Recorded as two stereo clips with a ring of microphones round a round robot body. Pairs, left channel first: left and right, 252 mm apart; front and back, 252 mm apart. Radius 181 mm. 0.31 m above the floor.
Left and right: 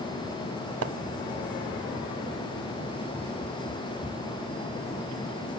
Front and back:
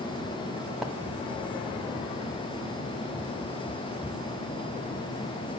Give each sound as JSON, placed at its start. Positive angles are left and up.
{"t": 0.8, "sound": "a splash", "azimuth_deg": -90, "distance_m": 1.3}